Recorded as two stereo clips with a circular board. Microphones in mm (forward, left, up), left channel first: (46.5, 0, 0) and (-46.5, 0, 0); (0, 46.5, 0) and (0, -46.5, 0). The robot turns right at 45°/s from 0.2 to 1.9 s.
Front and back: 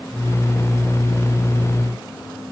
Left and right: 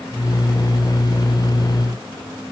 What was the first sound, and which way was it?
Only background noise.